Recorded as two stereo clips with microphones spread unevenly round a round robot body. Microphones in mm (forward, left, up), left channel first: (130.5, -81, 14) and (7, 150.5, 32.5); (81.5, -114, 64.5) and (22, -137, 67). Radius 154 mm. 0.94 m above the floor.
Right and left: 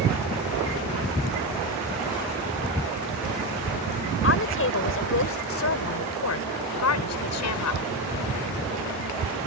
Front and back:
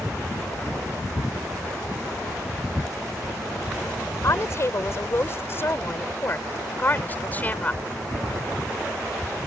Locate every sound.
4.2 s a woman speaking: 20° right; by 7.8 s 45° right